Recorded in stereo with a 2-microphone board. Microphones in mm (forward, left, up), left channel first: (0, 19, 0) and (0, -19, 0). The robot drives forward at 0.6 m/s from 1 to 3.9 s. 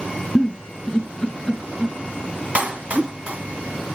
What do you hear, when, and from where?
0.3 s a giggle: 25° left (ahead or behind), 2.5 m; by 3.1 s 15° left (ahead or behind), 3.5 m
2.5 s a clap: 35° right (ahead or behind), 1.7 m